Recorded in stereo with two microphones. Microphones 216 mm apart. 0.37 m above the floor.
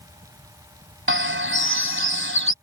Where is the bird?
65° right (ahead or behind).